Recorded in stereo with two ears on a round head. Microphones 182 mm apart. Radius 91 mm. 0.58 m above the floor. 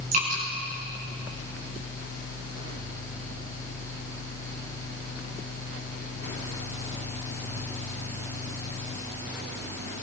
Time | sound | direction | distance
0.1 | dripping | 40° right (ahead or behind) | 8 m